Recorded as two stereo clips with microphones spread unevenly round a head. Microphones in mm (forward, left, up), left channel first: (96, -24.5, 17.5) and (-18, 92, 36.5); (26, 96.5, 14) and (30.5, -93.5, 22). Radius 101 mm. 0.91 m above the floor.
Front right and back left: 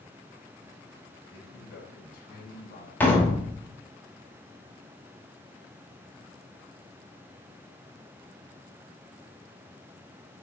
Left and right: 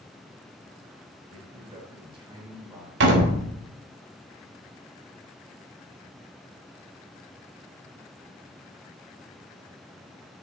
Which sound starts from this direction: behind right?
A door slam, at 3.0 s.